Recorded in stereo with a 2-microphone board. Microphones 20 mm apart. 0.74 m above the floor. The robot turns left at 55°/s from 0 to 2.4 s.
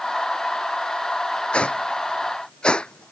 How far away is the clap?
I don't hear a clap.